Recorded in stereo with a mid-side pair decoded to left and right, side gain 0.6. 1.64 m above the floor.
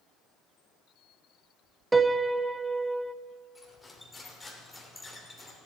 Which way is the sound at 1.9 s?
15° right.